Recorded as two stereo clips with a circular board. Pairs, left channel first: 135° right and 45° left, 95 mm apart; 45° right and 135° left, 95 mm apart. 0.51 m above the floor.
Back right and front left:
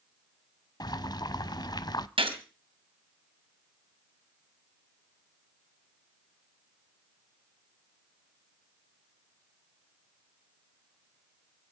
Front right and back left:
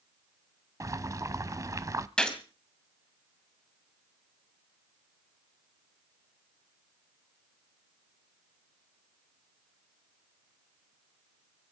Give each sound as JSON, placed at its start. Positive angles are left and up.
{"t": 0.8, "sound": "boiling", "azimuth_deg": -175, "distance_m": 0.6}
{"t": 2.2, "sound": "a gunshot", "azimuth_deg": 35, "distance_m": 2.5}